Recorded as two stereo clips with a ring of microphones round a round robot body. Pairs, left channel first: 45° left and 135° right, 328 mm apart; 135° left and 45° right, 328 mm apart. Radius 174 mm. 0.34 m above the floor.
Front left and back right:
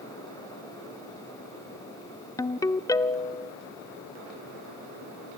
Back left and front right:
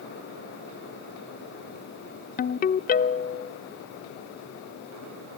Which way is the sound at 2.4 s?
115° left.